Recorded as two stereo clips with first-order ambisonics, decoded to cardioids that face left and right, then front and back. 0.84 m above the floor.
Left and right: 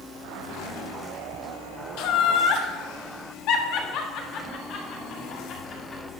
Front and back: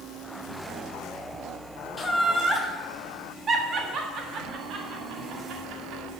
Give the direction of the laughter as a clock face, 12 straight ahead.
9 o'clock.